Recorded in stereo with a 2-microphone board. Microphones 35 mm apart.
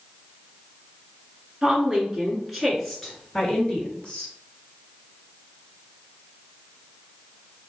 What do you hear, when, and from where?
1.6 s a woman speaking: 20° right (ahead or behind), 1.6 m; by 4.3 s 30° left (ahead or behind), 2 m